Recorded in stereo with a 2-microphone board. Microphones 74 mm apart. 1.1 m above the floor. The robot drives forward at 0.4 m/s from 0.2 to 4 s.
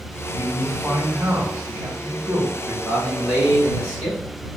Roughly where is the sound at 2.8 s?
Centre.